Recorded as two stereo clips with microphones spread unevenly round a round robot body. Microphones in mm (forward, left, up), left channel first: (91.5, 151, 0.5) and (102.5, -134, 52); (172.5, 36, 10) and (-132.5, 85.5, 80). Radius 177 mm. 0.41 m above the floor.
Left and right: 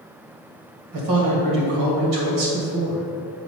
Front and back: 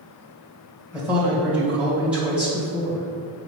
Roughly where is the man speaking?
Right.